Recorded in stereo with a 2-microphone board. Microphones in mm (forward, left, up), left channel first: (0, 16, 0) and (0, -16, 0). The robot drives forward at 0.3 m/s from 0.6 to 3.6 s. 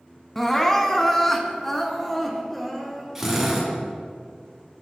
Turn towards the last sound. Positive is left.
turn(degrees=-10)  # may be behind; listen again after turning